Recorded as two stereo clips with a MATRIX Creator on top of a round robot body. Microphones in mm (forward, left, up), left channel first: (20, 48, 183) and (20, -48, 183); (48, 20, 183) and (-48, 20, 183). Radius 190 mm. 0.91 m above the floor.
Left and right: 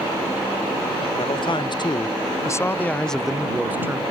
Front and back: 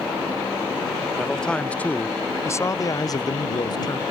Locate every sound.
1.2 s a man speaking: 85° left; by 4.0 s 30° right